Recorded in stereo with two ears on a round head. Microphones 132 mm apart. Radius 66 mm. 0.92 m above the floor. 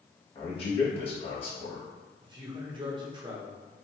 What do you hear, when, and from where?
0.3 s a man speaking: 40° left (ahead or behind), 1.4 m
2.2 s a man speaking: 30° right (ahead or behind), 0.8 m